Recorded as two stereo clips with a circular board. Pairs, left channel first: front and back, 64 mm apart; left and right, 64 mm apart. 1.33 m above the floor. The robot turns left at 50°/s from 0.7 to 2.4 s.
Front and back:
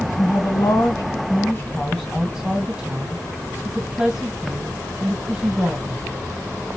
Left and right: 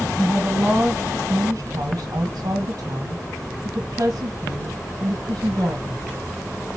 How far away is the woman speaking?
About 1.3 m.